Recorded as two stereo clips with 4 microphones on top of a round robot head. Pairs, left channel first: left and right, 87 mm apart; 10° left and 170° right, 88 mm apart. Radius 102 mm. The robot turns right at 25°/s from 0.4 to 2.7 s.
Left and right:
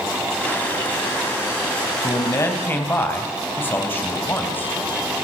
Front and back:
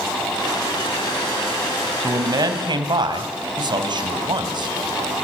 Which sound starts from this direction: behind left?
A man speaking, at 2.0 s.